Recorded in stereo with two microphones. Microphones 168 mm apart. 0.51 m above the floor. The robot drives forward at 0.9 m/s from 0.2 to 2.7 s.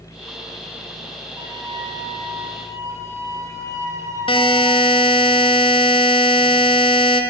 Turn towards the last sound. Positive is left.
turn(degrees=30)  # may be behind; listen again after turning